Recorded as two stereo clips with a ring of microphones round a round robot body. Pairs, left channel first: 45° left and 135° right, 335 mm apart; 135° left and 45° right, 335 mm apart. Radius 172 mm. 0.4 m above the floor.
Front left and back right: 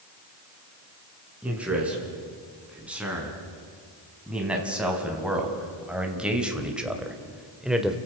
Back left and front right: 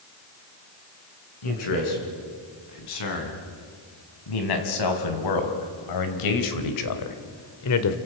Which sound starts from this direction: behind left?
A man speaking, at 1.4 s.